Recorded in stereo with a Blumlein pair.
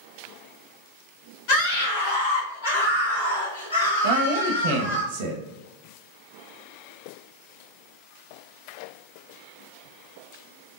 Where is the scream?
45° left, 1.4 m; by 5.0 s 70° left, 3 m.